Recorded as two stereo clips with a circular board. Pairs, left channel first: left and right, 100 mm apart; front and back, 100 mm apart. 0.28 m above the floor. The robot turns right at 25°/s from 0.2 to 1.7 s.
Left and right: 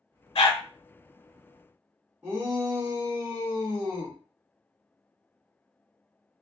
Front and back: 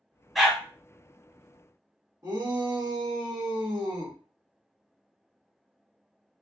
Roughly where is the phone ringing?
No phone ringing in this recording.